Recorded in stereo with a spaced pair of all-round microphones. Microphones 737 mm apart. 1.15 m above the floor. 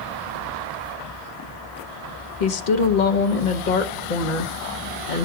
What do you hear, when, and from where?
2.4 s a woman speaking: 90° left, 1.0 m